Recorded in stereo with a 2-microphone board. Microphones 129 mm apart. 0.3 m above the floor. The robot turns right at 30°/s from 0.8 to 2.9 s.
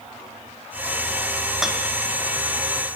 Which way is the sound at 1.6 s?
Centre (ahead or behind).